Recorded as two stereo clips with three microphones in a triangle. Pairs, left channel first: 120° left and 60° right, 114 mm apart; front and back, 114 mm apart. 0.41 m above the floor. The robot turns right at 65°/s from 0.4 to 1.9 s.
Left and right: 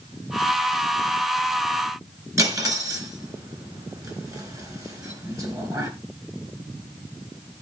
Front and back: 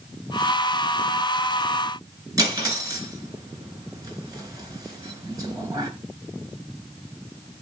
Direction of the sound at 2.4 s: 125° right.